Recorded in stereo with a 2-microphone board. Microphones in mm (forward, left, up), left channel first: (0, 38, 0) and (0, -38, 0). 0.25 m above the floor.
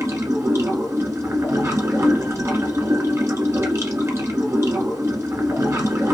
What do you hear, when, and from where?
0.0 s running water: 40° right (ahead or behind), 1.6 m